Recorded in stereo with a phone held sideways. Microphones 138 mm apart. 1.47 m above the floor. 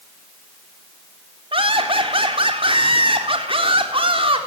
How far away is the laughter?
About 4 m.